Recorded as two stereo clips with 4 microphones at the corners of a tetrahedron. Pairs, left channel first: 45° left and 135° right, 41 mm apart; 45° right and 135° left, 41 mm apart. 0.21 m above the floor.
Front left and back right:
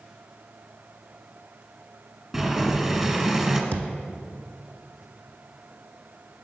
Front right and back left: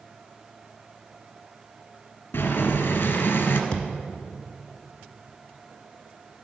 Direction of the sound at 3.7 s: 115° right.